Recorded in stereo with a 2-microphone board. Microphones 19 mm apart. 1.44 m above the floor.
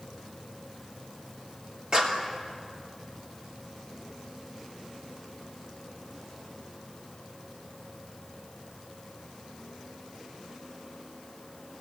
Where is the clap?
45° right (ahead or behind), 3 m.